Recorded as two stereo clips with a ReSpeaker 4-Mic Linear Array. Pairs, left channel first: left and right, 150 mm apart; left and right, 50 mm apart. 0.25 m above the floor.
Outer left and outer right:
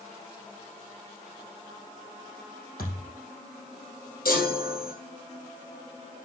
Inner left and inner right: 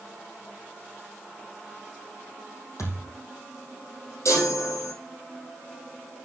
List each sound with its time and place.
2.8 s a thud: 85° left, 5 m
4.2 s a chime: 85° left, 3.5 m